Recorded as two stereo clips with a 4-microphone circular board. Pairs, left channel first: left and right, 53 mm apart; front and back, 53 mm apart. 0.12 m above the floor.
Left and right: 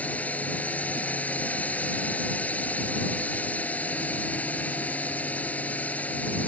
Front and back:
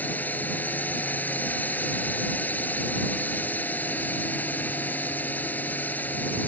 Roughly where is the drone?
Ahead left.